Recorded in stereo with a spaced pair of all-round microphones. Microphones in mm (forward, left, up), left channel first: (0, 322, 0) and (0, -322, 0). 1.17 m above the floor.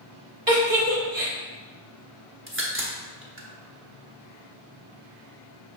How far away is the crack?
About 0.8 m.